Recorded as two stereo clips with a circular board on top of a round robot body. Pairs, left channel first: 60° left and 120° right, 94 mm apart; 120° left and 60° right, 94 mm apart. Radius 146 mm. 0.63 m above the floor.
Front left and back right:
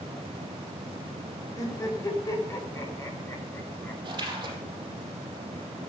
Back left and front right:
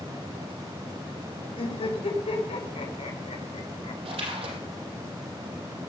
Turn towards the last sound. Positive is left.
turn(degrees=-75)